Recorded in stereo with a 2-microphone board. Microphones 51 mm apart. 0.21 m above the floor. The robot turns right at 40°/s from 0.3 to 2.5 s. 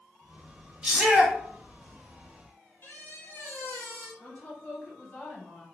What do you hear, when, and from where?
0.8 s a shout: 15° right (ahead or behind), 1.2 m; by 1.4 s 5° right (ahead or behind), 1.2 m
2.8 s a squeak: 45° left (ahead or behind), 1.2 m
4.2 s a woman speaking: 25° left (ahead or behind), 1.1 m